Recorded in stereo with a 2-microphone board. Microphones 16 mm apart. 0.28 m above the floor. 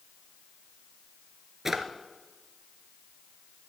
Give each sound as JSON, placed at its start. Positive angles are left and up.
{"t": 1.6, "sound": "a drawer", "side_deg": -15, "distance_m": 1.3}